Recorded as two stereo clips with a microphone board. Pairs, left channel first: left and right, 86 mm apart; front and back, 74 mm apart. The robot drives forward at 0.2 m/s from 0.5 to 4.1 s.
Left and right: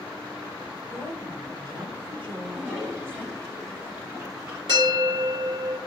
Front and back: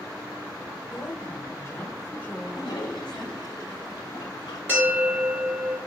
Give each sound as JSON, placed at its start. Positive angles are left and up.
{"t": 0.9, "sound": "a woman speaking", "azimuth_deg": -60, "distance_m": 1.3}
{"t": 2.4, "sound": "a toilet flushing", "azimuth_deg": -25, "distance_m": 2.0}
{"t": 4.7, "sound": "a bell", "azimuth_deg": -115, "distance_m": 2.5}